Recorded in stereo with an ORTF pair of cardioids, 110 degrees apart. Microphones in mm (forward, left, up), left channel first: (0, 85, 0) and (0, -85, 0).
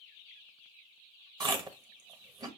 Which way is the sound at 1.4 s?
25° right.